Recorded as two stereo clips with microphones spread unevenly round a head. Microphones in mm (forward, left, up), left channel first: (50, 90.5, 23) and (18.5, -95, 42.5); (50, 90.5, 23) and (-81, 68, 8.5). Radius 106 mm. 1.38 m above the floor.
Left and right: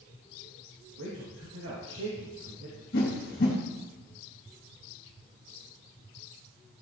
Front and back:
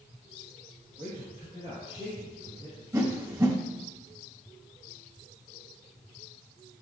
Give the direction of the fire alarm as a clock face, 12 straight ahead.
No fire alarm in this recording.